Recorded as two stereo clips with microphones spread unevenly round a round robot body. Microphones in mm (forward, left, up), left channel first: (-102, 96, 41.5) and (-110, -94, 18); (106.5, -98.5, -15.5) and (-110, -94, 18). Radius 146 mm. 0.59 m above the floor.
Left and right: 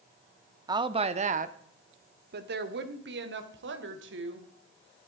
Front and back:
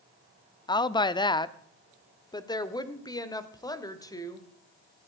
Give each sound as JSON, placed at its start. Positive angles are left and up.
{"t": 0.7, "sound": "a woman speaking", "azimuth_deg": -45, "distance_m": 0.7}